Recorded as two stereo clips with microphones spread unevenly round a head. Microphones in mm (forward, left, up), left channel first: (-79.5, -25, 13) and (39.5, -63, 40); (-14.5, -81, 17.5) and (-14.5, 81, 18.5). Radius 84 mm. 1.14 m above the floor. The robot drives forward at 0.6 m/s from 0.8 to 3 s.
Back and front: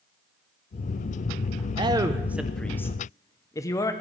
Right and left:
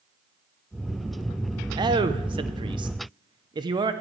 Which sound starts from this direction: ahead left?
A man speaking, at 1.8 s.